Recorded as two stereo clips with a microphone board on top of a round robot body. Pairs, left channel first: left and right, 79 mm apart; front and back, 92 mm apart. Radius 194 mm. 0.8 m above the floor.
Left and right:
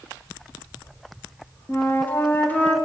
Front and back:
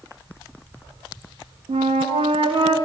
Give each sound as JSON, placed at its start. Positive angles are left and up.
{"t": 1.7, "sound": "a flute", "azimuth_deg": 160, "distance_m": 0.7}